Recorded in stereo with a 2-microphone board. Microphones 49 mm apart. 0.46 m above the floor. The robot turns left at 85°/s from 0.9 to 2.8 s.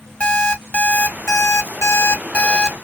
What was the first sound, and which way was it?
An alarm clock, 155° left.